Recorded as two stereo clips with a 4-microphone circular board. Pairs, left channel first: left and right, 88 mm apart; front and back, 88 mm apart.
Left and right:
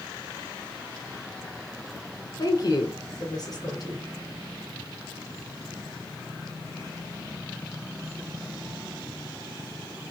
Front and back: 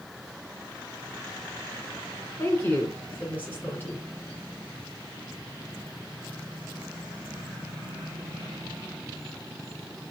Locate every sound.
2.4 s a woman speaking: 65° left, 2.5 m